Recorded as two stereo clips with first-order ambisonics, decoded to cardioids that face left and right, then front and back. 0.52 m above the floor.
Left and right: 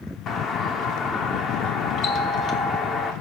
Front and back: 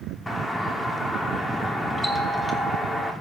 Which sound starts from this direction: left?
A doorbell, at 0.3 s.